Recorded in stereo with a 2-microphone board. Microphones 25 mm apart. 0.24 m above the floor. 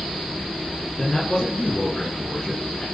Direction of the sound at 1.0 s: 35° left (ahead or behind).